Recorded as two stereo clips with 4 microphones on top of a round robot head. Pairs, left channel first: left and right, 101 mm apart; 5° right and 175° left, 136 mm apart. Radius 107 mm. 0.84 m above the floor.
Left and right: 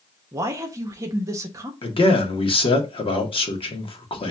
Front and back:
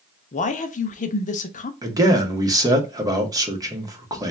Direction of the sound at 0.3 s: 30° right.